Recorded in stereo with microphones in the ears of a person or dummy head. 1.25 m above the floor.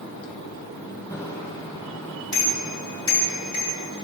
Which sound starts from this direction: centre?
A bicycle bell, at 1.1 s.